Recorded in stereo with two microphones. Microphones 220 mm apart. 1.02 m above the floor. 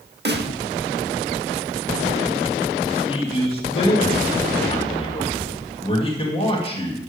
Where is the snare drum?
50° right (ahead or behind), 0.9 m.